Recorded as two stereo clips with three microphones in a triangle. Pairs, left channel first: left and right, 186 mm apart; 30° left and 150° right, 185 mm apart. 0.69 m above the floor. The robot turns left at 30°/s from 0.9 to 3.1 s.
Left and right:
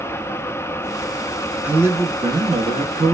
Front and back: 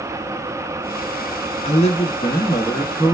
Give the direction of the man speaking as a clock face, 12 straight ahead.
12 o'clock.